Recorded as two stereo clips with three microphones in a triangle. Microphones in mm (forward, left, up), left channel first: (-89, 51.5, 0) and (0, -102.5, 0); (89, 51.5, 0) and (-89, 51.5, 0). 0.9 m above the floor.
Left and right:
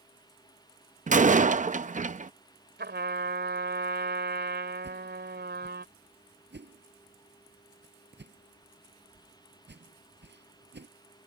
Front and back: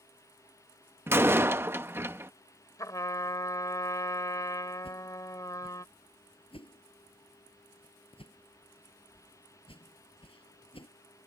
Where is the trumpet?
70° right.